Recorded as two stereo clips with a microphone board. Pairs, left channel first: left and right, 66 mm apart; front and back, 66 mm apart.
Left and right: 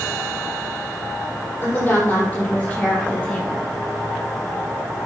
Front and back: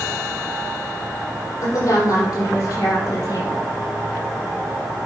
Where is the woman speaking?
30° left, 5 m; by 3.6 s 15° left, 4 m.